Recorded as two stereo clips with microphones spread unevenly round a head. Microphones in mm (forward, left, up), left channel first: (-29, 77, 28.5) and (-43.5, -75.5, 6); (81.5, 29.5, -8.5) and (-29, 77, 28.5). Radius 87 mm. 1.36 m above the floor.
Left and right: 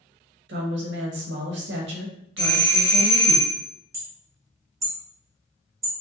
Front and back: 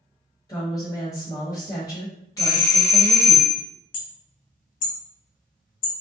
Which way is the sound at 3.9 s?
20° right.